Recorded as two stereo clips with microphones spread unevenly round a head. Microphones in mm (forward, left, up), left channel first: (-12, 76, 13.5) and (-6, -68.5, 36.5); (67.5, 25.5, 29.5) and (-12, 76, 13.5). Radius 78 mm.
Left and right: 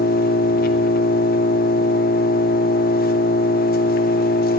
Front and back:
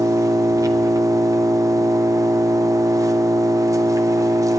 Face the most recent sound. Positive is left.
turn(degrees=95)